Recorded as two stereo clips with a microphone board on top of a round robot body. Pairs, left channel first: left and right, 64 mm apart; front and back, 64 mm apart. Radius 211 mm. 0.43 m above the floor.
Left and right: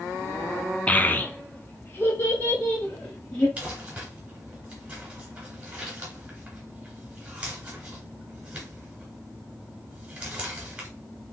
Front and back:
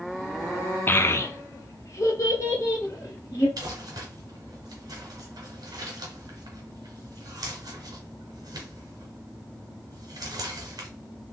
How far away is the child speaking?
About 0.5 m.